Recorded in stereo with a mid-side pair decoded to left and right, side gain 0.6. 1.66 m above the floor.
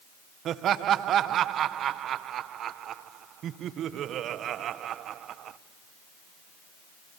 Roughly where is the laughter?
Ahead right.